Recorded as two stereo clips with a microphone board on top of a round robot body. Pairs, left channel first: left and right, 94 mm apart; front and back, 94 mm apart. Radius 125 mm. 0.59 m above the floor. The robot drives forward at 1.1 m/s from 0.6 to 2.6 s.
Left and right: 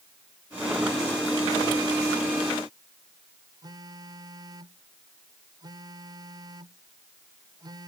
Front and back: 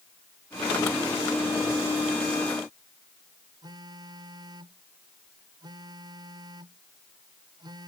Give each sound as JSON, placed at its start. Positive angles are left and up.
{"t": 3.6, "sound": "a phone buzzing", "azimuth_deg": -135}